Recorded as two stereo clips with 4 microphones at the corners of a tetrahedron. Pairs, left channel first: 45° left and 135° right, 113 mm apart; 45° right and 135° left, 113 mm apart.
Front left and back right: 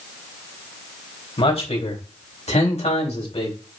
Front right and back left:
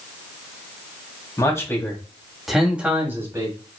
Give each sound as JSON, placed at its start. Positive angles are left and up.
{"t": 1.4, "sound": "a man speaking", "azimuth_deg": 15, "distance_m": 3.5}